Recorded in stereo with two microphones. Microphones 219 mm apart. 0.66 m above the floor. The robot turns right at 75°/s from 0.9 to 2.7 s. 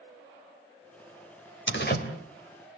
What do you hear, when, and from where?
1.7 s a door slam: 65° left (ahead or behind), 2.5 m; by 2.0 s 40° left (ahead or behind), 2.5 m